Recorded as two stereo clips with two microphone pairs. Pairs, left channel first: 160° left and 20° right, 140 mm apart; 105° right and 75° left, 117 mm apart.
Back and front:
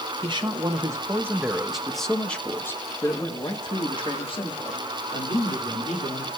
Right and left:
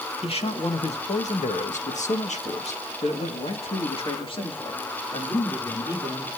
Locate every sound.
0.2 s a man speaking: 70° right, 1.9 m; by 6.3 s 160° right, 3.5 m